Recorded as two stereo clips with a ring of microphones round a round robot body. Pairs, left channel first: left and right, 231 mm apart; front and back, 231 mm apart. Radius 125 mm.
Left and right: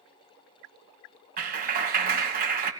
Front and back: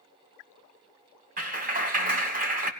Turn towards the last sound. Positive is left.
turn(degrees=-135)